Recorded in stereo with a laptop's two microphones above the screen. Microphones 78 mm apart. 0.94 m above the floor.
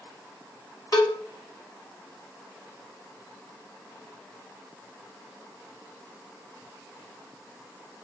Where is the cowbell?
50° left (ahead or behind), 1.3 m.